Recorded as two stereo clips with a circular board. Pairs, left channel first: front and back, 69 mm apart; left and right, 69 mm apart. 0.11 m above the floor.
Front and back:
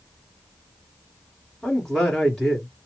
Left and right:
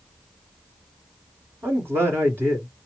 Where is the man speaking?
75° right, 1.8 m.